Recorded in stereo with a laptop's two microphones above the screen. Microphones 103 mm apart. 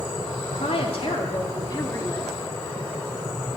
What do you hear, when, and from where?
0.5 s a woman speaking: 75° left (ahead or behind), 3 m; by 2.3 s 25° left (ahead or behind), 2.5 m